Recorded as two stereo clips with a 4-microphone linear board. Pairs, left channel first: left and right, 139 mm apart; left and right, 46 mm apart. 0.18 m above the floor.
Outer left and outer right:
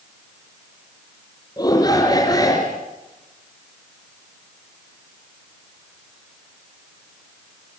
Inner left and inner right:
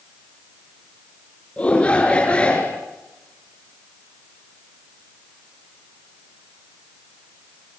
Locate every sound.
1.6 s a shout: 30° left (ahead or behind), 3 m